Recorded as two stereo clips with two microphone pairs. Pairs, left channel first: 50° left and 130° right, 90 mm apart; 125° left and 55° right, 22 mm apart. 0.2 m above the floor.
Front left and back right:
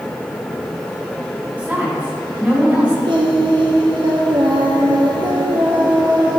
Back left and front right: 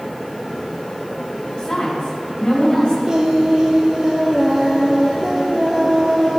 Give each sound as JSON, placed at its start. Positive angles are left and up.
{"t": 1.6, "sound": "a woman speaking", "azimuth_deg": 155, "distance_m": 2.0}
{"t": 3.0, "sound": "singing", "azimuth_deg": -105, "distance_m": 1.0}